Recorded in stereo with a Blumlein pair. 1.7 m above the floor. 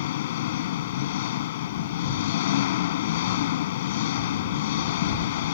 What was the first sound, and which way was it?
An engine running, 55° left.